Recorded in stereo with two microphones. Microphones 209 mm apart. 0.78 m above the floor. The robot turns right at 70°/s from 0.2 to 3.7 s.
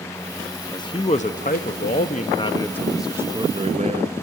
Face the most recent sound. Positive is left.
turn(degrees=-125)